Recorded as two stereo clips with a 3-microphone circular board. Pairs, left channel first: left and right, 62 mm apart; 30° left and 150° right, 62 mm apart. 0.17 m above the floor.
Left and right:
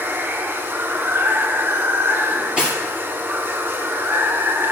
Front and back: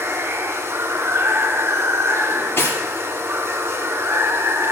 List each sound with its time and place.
0.0 s running water: 125° right, 0.9 m
2.3 s cutlery clinking: 15° right, 2.5 m